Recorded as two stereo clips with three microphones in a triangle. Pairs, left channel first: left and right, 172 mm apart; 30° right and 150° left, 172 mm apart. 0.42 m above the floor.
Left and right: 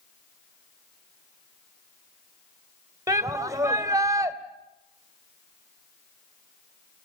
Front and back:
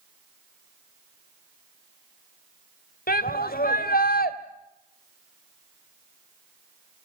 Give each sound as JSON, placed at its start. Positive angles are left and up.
{"t": 3.1, "sound": "a shout", "azimuth_deg": -20, "distance_m": 1.9}